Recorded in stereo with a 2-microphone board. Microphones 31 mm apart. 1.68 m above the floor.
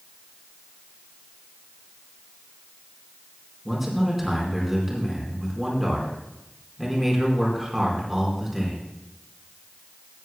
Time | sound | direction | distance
3.6 | a man speaking | 5° right (ahead or behind) | 4.5 m